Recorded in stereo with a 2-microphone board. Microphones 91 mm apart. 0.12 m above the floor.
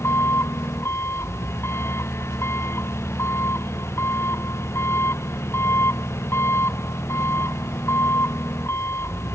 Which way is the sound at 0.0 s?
30° left (ahead or behind).